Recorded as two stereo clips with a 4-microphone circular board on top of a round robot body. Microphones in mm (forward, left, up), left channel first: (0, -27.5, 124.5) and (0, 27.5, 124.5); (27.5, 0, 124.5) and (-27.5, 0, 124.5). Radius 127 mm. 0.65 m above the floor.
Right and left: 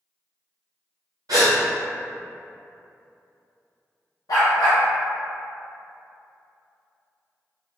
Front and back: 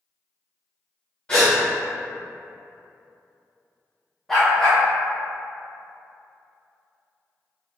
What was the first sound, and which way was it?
A gasp, 75° left.